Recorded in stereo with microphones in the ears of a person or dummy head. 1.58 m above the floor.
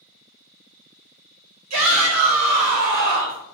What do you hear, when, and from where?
1.7 s a shout: 90° right, 1.4 m; by 3.4 s 35° right (ahead or behind), 1.3 m